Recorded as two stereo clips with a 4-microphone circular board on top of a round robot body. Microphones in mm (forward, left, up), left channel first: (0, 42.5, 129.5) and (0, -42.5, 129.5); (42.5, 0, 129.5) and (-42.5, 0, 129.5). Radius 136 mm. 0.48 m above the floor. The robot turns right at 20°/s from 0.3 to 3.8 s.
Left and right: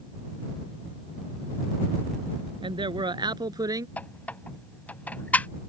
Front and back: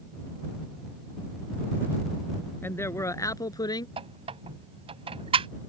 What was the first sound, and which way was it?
A man speaking, 65° right.